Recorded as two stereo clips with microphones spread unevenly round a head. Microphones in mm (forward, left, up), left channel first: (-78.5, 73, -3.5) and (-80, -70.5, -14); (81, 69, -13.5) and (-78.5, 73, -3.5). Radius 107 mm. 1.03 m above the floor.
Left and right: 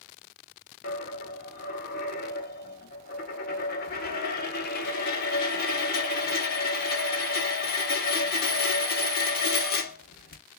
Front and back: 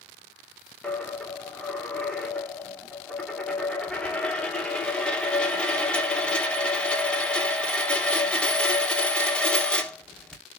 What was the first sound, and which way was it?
A dropped coin, 85° left.